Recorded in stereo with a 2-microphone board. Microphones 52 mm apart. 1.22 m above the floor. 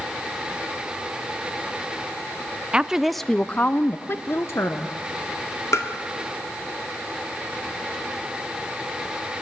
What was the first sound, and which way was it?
A woman speaking, 20° right (ahead or behind).